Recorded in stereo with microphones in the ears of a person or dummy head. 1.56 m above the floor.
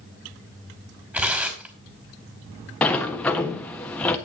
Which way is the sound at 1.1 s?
10° right (ahead or behind).